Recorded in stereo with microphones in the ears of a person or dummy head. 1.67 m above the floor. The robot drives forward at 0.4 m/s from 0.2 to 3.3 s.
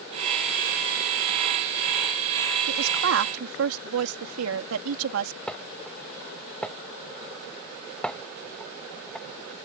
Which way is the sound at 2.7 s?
80° right.